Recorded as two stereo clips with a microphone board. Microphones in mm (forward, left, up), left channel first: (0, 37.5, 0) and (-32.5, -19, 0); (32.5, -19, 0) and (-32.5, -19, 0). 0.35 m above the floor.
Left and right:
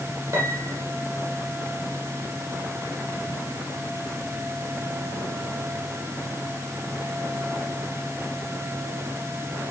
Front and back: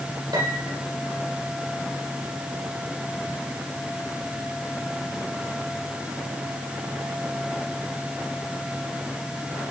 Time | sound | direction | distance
0.3 | a piano | 175° right | 6.5 m